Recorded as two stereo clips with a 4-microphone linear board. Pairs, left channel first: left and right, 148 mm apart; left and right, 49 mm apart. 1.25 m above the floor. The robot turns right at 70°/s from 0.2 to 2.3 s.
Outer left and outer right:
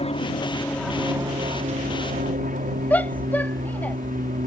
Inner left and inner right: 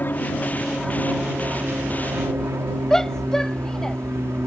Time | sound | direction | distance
0.0 | an aircraft | 130° left | ?
2.9 | a shout | 10° left (ahead or behind) | ?